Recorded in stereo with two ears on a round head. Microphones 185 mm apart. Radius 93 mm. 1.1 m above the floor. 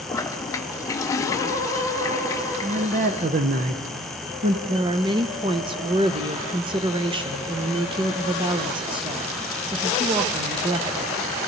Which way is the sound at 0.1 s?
15° left (ahead or behind).